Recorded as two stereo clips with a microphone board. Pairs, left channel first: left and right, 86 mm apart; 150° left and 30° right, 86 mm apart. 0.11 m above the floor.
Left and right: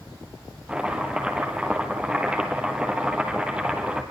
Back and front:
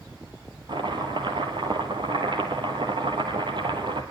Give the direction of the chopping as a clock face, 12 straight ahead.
12 o'clock.